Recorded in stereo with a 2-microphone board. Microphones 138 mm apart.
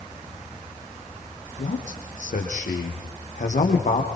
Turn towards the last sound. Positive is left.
turn(degrees=60)  # may be behind; listen again after turning